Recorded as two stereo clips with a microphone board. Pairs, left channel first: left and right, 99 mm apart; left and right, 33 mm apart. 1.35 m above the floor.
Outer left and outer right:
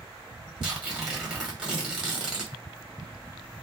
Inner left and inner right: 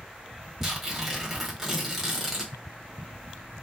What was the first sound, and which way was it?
Tearing paper, 10° right (ahead or behind).